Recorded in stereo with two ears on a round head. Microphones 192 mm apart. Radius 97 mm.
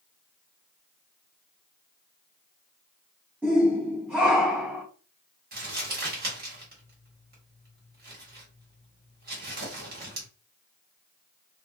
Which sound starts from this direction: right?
Crumpling, at 5.5 s.